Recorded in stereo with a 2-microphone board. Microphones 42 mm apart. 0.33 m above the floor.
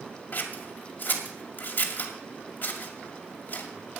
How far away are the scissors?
About 2 m.